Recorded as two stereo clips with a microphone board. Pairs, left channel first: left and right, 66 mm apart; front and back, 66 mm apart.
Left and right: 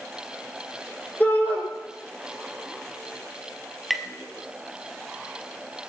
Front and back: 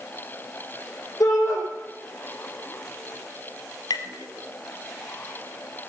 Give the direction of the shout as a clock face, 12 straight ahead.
11 o'clock.